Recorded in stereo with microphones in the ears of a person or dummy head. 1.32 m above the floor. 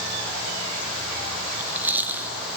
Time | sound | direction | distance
1.5 | chewing | 10° right (ahead or behind) | 1.7 m